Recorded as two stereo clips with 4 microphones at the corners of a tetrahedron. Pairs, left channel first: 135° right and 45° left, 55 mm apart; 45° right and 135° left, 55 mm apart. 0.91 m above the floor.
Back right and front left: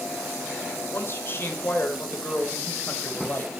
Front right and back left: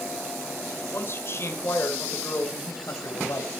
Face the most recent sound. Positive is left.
turn(degrees=-75)